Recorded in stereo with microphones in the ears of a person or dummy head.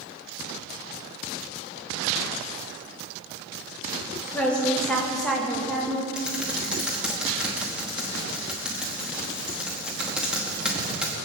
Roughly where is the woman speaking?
Centre.